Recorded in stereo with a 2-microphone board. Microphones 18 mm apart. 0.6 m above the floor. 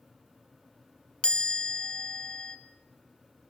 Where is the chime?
70° left (ahead or behind), 1.3 m.